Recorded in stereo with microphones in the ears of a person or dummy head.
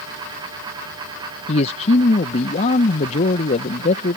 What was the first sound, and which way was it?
A man speaking, 40° left (ahead or behind).